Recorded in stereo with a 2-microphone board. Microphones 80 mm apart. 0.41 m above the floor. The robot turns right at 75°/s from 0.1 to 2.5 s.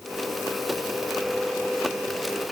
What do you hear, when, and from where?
Only background noise.